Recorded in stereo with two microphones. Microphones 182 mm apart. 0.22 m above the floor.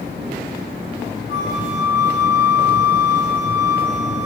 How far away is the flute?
About 7.5 m.